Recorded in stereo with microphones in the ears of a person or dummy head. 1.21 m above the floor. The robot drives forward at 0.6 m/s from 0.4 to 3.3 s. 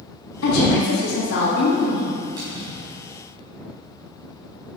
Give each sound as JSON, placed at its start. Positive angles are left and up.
{"t": 0.4, "sound": "a woman speaking", "side_deg": 85, "distance_m": 1.6}
{"t": 2.4, "sound": "a splash", "side_deg": -20, "distance_m": 3.0}